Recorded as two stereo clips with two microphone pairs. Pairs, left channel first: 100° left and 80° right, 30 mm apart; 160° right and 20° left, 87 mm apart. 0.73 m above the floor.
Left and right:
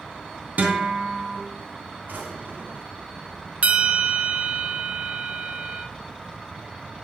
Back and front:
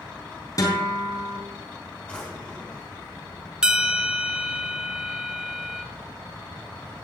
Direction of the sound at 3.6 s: 55° right.